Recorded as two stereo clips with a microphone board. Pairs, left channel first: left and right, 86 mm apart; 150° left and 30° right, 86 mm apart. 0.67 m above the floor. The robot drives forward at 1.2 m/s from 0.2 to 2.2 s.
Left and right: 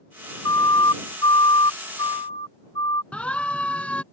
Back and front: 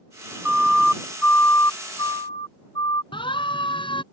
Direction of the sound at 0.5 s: 50° left.